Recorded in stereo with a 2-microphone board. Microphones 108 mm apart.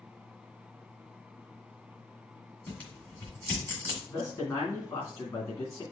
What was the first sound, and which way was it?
Tearing paper, 15° left (ahead or behind).